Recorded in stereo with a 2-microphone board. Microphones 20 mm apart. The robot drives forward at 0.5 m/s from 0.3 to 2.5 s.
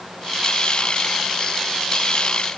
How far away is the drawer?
I don't hear a drawer.